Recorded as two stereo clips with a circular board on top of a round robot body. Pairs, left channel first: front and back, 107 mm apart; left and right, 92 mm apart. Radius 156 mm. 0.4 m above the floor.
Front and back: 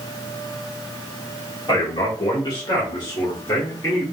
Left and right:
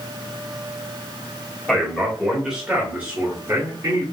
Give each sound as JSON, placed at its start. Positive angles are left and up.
{"t": 1.7, "sound": "a man speaking", "azimuth_deg": 10, "distance_m": 1.6}